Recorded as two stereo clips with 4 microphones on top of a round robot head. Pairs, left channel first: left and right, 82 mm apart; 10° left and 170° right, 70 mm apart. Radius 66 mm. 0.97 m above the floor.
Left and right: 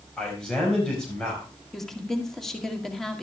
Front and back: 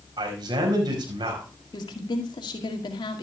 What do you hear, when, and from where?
0.2 s a man speaking: 175° left, 5 m
1.7 s a woman speaking: 5° left, 2 m